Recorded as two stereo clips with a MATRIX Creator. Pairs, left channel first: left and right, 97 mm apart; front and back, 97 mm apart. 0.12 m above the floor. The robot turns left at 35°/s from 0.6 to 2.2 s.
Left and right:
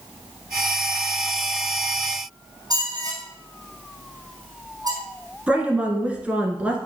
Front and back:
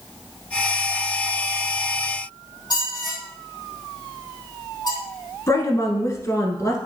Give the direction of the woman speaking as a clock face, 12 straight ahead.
1 o'clock.